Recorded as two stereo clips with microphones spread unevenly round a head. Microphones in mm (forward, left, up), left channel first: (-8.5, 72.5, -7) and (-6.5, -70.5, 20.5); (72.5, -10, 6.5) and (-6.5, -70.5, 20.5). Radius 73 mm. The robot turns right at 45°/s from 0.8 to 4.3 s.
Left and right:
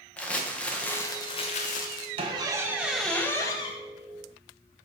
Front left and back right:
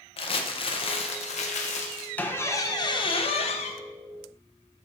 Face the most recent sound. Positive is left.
turn(degrees=55)